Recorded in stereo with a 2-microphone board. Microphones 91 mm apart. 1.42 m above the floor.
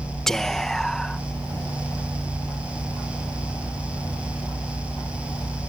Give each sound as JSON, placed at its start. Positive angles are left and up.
{"t": 0.3, "sound": "whispering", "side_deg": 5}